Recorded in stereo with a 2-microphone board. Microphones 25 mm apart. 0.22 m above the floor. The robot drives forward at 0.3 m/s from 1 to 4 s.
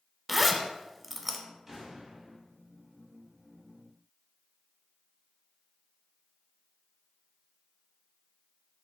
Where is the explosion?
25° right (ahead or behind), 1.8 m.